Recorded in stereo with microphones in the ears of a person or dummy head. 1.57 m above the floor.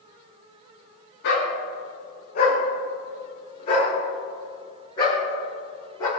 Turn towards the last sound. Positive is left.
turn(degrees=25)  # may be behind; listen again after turning